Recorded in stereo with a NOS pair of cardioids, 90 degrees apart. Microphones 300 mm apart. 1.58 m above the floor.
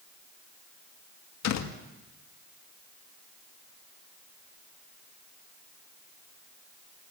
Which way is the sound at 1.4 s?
65° left.